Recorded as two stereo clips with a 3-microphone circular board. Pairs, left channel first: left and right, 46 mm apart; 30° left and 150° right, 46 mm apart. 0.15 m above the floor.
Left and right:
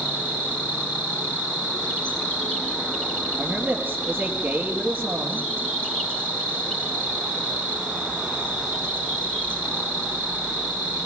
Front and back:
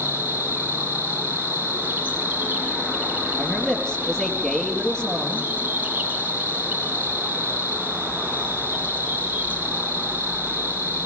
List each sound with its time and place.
0.0 s an insect: 155° left, 2.5 m
3.4 s a man speaking: 40° right, 3.5 m